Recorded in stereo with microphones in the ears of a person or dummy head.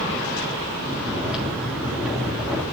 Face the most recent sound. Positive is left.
turn(degrees=-5)  # may be behind; listen again after turning